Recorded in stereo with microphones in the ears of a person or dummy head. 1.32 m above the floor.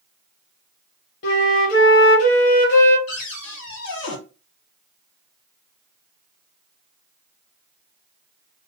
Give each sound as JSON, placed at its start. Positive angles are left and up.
{"t": 1.2, "sound": "a flute", "side_deg": 55, "distance_m": 0.8}
{"t": 3.1, "sound": "a cupboard door", "side_deg": 65, "distance_m": 1.1}